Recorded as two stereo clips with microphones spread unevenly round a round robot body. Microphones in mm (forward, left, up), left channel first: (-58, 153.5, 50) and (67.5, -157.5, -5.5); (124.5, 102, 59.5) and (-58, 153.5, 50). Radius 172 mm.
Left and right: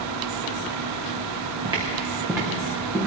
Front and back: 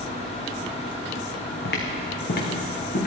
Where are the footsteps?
10° left, 2.5 m; by 3.1 s 25° left, 4 m.